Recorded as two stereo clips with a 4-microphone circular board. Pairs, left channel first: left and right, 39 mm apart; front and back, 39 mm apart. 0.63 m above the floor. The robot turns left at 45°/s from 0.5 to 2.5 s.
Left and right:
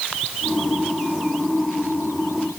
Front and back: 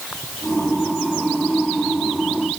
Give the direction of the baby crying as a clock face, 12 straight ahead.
I don't hear a baby crying.